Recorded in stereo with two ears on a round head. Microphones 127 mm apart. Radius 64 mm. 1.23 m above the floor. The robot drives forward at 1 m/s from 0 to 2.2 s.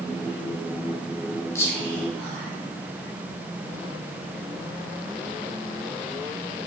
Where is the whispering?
20° left (ahead or behind), 0.9 m; by 2.5 s 10° left (ahead or behind), 1.5 m.